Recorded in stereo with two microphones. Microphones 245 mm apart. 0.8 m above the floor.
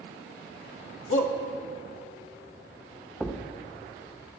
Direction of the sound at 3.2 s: 5° left (ahead or behind).